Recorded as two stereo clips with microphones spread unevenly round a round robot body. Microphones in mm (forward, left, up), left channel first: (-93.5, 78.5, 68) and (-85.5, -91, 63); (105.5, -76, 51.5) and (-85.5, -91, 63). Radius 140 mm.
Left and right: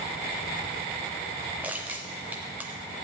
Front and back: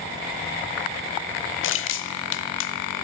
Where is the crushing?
5° right, 0.6 m.